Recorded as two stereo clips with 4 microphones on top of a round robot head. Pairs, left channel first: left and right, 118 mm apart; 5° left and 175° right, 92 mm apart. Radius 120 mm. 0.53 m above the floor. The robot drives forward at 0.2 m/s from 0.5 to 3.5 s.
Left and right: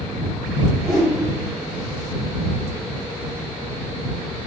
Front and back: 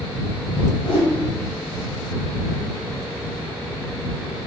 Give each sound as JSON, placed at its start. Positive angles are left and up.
{"t": 0.8, "sound": "a whoosh", "azimuth_deg": 5, "distance_m": 2.0}